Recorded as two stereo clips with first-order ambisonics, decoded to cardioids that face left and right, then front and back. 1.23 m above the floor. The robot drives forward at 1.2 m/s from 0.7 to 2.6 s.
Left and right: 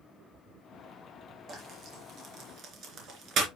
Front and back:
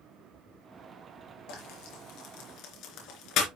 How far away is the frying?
About 4.5 m.